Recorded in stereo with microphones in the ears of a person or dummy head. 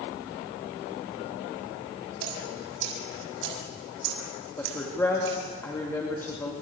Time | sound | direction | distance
2.2 | dripping | 75° right (ahead or behind) | 5.5 m
4.6 | a woman speaking | 10° left (ahead or behind) | 3 m